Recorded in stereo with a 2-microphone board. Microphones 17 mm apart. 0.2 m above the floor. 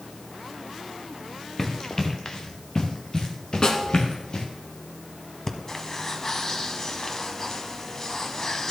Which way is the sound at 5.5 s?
30° left (ahead or behind).